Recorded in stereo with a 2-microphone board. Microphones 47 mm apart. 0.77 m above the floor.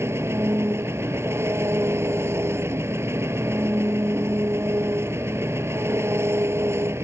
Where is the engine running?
70° right (ahead or behind).